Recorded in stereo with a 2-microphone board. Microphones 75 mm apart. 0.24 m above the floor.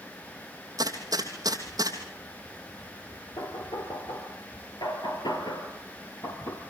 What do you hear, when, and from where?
0.8 s a gunshot: 55° right (ahead or behind), 3 m
3.4 s knocking: 80° left, 3 m